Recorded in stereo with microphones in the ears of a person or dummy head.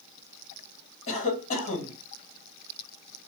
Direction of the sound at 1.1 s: 45° left (ahead or behind).